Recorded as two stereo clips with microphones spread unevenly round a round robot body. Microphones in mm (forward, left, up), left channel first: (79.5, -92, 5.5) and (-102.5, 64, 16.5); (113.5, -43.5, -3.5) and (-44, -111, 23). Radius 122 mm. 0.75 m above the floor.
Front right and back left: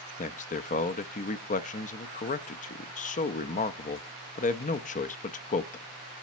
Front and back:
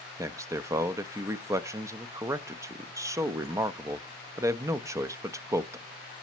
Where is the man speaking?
80° right, 0.6 m.